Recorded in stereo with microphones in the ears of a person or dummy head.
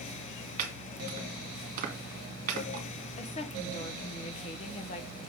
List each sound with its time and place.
0.6 s chopping: 40° right (ahead or behind), 1.9 m
3.2 s a woman speaking: 35° left (ahead or behind), 1.0 m